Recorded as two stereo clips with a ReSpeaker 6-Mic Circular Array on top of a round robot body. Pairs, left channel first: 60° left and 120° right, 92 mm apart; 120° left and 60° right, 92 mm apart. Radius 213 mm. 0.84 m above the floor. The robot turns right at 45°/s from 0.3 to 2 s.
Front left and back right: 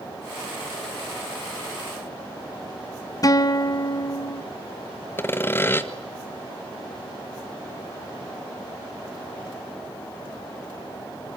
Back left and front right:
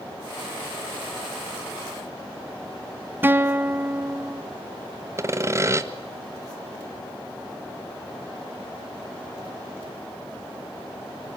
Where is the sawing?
5° right, 1.9 m.